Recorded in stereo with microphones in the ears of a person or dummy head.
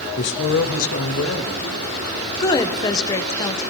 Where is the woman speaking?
20° left (ahead or behind), 0.7 m.